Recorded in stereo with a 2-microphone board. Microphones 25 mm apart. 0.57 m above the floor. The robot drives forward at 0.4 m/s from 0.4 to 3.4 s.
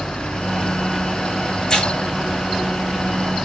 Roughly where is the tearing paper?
Left.